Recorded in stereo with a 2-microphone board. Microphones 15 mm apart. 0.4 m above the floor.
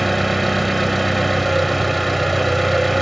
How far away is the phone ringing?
I don't hear a phone ringing.